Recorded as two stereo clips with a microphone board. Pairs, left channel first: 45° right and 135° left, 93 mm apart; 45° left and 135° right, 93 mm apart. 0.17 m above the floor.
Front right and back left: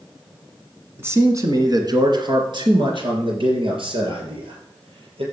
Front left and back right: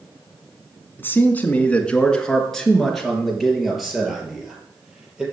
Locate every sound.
1.0 s a man speaking: 95° left, 1.9 m; by 5.2 s 140° left, 5.5 m